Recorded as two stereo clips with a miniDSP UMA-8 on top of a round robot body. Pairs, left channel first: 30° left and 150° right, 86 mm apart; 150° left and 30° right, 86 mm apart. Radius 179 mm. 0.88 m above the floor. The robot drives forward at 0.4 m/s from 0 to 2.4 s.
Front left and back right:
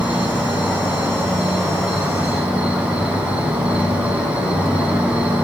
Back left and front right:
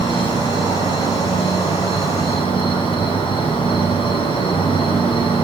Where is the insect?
130° left, 8.5 m; by 5.4 s 135° left, 9.5 m.